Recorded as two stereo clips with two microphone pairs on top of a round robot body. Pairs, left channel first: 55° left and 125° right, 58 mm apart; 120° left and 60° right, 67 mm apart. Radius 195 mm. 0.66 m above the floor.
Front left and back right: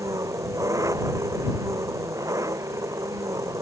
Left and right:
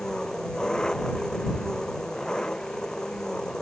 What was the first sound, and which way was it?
An engine running, 160° right.